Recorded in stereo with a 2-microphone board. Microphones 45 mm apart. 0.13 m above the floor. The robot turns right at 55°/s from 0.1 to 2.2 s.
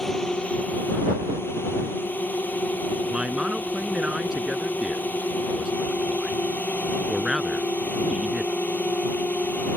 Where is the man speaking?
20° right (ahead or behind).